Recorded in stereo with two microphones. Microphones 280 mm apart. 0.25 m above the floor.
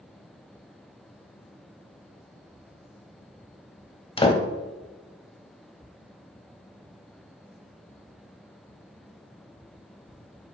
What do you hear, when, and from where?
4.2 s a door slam: 20° left (ahead or behind), 0.7 m